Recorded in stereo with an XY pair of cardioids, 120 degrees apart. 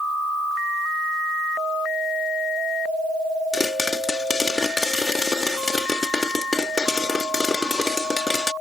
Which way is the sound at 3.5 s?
20° left.